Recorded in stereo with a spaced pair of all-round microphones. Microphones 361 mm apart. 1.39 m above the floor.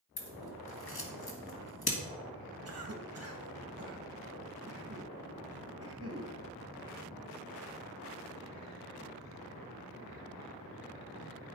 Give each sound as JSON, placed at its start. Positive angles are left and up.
{"t": 0.2, "sound": "scissors", "side_deg": 80, "distance_m": 1.8}
{"t": 2.6, "sound": "a cough", "side_deg": -40, "distance_m": 1.8}